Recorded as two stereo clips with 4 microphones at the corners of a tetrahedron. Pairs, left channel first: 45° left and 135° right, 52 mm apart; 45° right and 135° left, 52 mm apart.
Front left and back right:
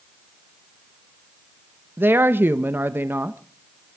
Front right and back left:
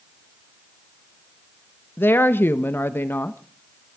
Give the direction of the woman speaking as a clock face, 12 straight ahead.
3 o'clock.